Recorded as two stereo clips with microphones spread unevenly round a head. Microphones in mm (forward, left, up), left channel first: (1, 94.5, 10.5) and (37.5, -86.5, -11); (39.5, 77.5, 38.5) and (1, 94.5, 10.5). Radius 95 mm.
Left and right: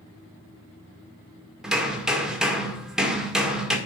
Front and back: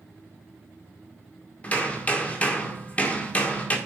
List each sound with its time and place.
1.6 s hammering: 10° left, 1.8 m